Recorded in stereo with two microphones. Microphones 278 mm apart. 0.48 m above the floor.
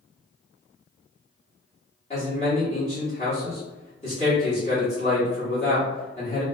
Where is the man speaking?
25° left (ahead or behind), 1.4 m.